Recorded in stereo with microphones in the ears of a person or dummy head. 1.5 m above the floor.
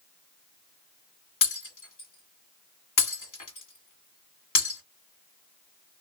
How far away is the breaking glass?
About 1.8 m.